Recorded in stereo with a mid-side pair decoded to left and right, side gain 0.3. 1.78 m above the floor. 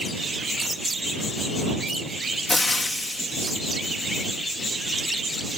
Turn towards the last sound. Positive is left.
turn(degrees=30)